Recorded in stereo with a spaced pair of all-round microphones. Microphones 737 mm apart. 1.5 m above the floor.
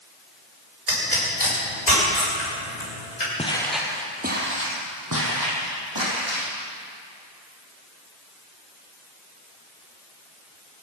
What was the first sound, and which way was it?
A pop, 70° left (ahead or behind).